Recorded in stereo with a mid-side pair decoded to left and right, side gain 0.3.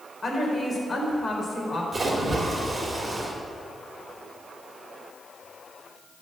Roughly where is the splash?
Ahead right.